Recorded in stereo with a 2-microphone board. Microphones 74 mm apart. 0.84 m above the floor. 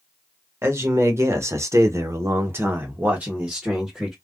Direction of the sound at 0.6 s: 35° right (ahead or behind).